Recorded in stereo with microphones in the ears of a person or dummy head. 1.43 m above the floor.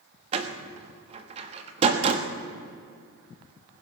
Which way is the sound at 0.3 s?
35° right (ahead or behind).